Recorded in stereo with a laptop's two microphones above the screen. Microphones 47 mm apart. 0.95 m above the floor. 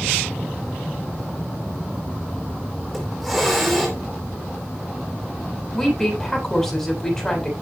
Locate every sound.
2.9 s a hiss: 5° right (ahead or behind), 3.5 m
5.7 s a woman speaking: 10° left (ahead or behind), 7 m